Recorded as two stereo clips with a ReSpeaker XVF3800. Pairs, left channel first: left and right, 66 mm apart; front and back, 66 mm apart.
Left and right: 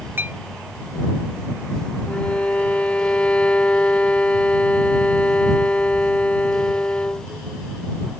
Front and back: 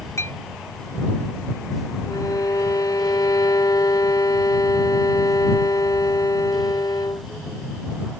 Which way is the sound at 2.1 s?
15° left.